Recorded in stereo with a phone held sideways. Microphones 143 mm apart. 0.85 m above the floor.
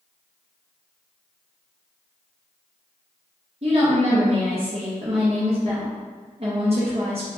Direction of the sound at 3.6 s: 45° right (ahead or behind).